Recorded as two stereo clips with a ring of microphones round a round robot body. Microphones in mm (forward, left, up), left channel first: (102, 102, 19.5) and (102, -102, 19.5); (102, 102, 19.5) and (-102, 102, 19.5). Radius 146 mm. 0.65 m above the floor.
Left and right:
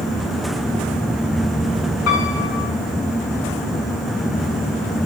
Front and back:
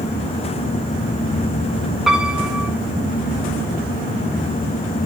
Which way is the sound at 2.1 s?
90° left.